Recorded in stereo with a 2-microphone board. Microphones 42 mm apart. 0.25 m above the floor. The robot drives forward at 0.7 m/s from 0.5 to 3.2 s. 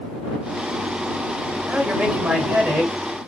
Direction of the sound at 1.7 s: 30° right (ahead or behind).